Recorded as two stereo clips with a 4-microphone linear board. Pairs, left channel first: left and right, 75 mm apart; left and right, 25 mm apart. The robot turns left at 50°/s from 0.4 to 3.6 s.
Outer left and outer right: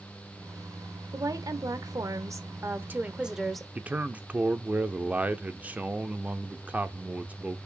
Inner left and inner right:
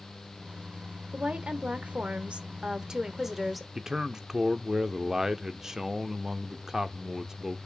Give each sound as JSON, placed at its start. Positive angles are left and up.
{"t": 1.1, "sound": "a woman speaking", "azimuth_deg": -60, "distance_m": 1.3}
{"t": 3.8, "sound": "a man speaking", "side_deg": -20, "distance_m": 0.9}